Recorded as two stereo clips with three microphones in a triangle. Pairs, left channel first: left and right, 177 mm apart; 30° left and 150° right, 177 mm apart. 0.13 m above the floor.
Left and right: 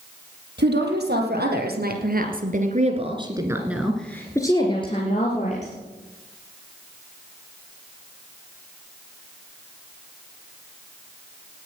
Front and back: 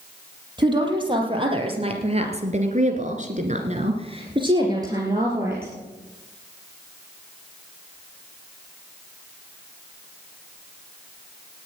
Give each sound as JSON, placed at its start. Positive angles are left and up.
{"t": 0.6, "sound": "a woman speaking", "azimuth_deg": -85, "distance_m": 4.5}